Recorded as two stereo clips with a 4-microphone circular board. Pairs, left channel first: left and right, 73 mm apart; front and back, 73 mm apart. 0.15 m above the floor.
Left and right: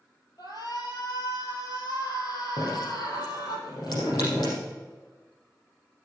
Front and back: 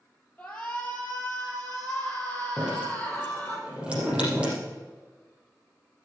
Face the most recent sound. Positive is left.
turn(degrees=105)